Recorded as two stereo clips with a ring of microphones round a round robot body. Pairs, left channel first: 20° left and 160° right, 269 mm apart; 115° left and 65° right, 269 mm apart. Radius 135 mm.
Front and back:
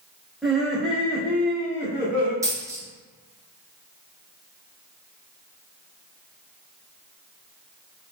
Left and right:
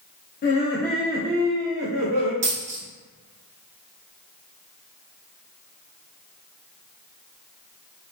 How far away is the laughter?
About 0.8 m.